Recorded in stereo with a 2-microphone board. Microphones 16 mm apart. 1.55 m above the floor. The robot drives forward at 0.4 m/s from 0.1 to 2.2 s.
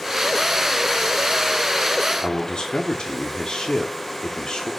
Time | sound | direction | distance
2.2 | a man speaking | 70° left (ahead or behind) | 1.2 m